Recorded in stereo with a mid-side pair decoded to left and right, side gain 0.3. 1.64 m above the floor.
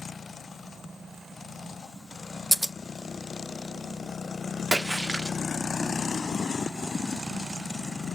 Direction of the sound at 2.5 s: 15° right.